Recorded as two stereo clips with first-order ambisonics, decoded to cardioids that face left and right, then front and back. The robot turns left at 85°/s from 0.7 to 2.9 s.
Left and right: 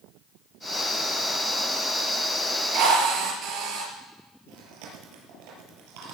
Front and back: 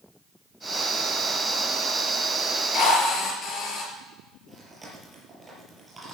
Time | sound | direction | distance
2.7 | a drill | 45° right | 5.5 m
4.5 | chewing | 100° right | 5.5 m